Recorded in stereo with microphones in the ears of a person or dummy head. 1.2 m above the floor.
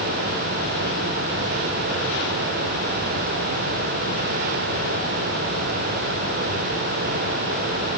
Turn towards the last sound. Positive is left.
No sound to turn to.